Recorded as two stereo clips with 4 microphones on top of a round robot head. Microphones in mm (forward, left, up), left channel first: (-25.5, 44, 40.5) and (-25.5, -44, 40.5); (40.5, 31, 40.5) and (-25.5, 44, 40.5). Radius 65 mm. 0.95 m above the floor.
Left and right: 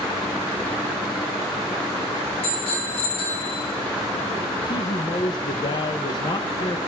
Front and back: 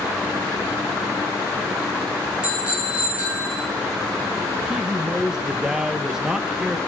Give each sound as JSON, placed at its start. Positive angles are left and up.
{"t": 2.4, "sound": "a bicycle bell", "azimuth_deg": 95, "distance_m": 7.5}
{"t": 4.7, "sound": "a man speaking", "azimuth_deg": 90, "distance_m": 1.0}